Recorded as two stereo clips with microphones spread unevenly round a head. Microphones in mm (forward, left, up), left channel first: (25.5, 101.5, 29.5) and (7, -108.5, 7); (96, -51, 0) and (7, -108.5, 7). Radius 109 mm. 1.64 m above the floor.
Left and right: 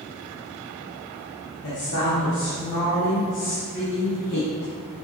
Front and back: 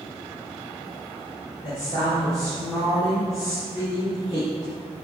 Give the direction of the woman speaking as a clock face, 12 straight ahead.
8 o'clock.